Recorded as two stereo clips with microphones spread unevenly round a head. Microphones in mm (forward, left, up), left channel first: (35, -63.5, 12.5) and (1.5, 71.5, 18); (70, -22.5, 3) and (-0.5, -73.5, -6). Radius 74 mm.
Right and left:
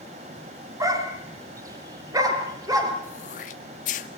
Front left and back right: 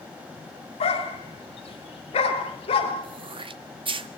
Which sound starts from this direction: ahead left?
A dog barking, at 0.8 s.